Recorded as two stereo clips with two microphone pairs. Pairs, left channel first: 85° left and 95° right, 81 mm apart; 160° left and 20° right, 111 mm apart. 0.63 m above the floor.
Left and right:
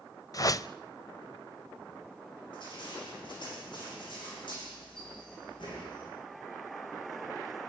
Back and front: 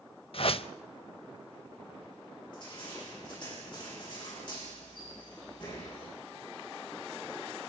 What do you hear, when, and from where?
0.3 s a whoosh: 130° left, 0.6 m
2.5 s crushing: 110° left, 9 m